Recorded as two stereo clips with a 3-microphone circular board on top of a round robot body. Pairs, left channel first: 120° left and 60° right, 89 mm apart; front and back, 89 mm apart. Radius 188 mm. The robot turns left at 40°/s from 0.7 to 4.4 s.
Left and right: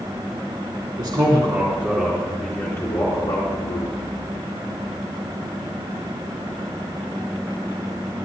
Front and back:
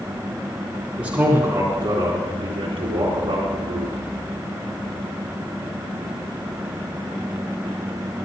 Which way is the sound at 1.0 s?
100° right.